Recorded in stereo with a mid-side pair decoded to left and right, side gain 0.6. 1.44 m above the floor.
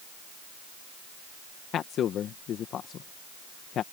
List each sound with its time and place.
1.7 s a man speaking: 50° left